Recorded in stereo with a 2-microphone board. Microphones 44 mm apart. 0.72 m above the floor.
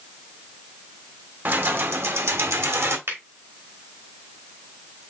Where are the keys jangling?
50° right (ahead or behind), 1.0 m; by 3.0 s 75° right (ahead or behind), 1.2 m.